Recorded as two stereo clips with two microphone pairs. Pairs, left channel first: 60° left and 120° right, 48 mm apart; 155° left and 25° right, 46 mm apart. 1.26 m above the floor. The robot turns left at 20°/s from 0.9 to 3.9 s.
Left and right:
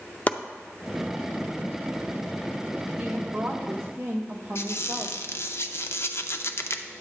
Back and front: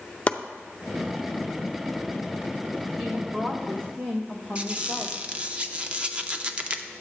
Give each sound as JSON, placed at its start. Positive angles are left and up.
{"t": 0.3, "sound": "chopping", "azimuth_deg": 110, "distance_m": 0.5}
{"t": 3.0, "sound": "a woman speaking", "azimuth_deg": -60, "distance_m": 0.9}
{"t": 4.5, "sound": "a squeak", "azimuth_deg": 35, "distance_m": 0.5}